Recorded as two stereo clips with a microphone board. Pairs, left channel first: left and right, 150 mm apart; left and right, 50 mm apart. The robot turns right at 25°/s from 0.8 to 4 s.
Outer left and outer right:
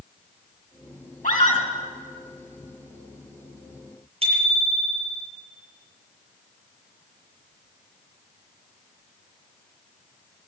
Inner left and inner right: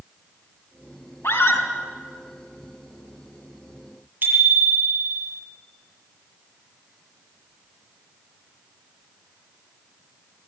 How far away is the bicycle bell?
About 7 m.